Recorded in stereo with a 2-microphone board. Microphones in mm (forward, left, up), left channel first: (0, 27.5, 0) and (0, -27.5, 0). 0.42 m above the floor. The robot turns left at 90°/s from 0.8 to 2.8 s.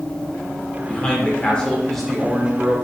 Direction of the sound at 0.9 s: 20° left (ahead or behind).